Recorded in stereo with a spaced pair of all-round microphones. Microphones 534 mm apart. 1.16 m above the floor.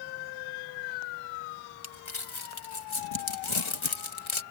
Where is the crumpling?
65° left (ahead or behind).